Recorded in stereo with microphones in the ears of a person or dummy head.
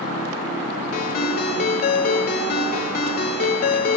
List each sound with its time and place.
0.9 s a ringtone: 45° left (ahead or behind), 1.4 m